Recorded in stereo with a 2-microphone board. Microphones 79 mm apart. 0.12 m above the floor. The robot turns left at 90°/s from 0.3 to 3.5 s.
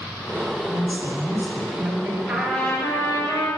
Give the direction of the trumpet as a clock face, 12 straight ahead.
6 o'clock.